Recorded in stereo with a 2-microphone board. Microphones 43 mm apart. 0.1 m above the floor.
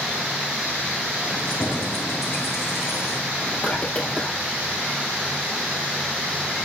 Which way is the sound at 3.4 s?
30° left (ahead or behind).